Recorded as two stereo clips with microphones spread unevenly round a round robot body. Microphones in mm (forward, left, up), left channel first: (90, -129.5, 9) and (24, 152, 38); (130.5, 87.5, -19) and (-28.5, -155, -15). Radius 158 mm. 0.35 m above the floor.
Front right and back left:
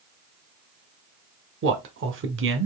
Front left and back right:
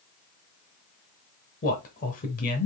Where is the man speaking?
95° left, 0.9 m.